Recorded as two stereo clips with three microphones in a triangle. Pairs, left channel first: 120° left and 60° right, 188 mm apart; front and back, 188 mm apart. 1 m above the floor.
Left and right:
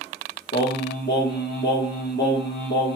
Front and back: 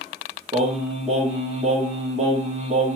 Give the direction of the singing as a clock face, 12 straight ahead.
8 o'clock.